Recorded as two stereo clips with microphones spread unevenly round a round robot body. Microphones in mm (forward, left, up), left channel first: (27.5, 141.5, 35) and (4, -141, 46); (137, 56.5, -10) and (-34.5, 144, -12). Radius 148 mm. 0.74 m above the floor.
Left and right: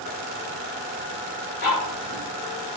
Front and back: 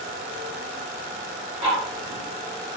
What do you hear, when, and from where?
1.6 s ticking: 105° left, 1.6 m